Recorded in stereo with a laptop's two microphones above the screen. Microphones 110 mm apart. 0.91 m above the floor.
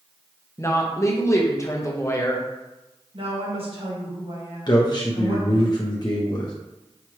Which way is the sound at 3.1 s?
55° right (ahead or behind).